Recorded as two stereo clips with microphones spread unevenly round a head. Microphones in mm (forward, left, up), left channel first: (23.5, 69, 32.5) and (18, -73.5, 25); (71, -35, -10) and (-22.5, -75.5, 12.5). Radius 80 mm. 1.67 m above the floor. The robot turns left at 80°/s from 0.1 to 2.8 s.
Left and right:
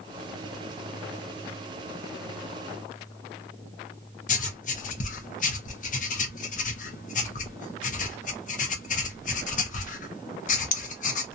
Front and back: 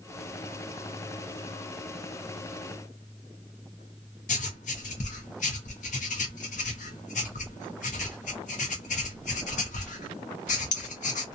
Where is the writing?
55° left, 0.7 m.